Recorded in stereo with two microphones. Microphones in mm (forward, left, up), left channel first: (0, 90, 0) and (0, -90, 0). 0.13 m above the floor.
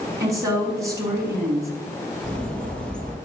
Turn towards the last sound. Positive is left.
turn(degrees=5)  # may be behind; listen again after turning